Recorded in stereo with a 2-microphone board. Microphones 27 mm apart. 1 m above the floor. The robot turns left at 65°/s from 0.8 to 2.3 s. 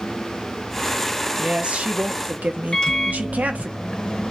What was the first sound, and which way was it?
A woman speaking, 35° right.